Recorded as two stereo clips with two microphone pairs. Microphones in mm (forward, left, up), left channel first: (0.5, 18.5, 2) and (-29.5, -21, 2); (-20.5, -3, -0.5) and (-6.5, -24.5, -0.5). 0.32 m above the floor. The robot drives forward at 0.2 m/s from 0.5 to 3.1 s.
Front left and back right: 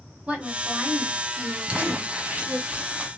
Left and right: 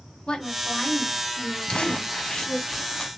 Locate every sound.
0.3 s a woman speaking: 175° left, 2 m
1.7 s crumpling: 170° left, 1.0 m